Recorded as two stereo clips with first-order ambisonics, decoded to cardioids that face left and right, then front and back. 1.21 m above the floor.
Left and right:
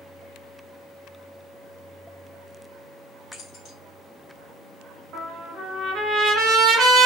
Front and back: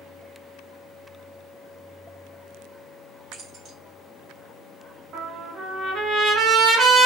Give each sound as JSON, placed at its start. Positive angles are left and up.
{"t": 3.3, "sound": "keys jangling", "azimuth_deg": 130, "distance_m": 1.1}
{"t": 5.1, "sound": "a trumpet", "azimuth_deg": -135, "distance_m": 1.1}